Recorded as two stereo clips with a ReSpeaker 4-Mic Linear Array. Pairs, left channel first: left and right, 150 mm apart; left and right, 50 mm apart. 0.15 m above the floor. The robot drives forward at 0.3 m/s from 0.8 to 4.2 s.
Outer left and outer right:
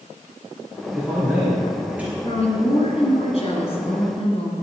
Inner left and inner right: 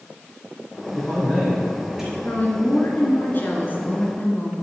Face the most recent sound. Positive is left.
turn(degrees=45)  # may be behind; listen again after turning